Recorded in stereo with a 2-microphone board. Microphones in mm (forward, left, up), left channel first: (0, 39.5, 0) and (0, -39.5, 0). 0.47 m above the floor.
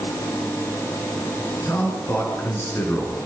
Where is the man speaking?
35° left (ahead or behind), 8 m.